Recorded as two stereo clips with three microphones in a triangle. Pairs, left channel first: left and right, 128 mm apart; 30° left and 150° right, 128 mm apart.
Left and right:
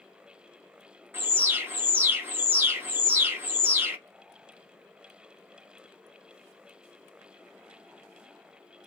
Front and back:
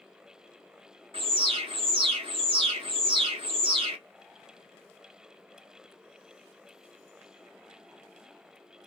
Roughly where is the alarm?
Behind right.